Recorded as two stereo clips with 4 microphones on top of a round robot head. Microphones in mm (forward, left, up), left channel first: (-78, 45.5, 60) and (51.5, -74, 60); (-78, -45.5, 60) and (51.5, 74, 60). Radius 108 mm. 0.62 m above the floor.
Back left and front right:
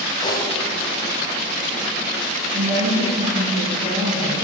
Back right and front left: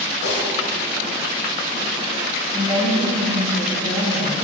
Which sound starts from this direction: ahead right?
A woman speaking, at 2.5 s.